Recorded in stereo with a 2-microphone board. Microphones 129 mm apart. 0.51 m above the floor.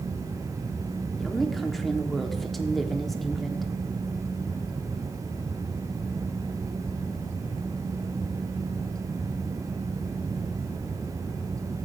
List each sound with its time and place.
1.2 s a woman speaking: centre (ahead or behind), 1.2 m